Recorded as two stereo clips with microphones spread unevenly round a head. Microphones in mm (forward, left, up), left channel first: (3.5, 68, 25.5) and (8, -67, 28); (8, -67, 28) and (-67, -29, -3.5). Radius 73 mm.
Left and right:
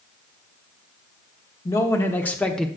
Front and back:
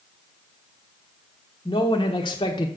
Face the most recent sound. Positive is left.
turn(degrees=5)